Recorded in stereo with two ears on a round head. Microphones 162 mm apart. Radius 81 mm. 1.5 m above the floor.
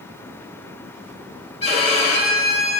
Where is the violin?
35° left (ahead or behind), 1.5 m.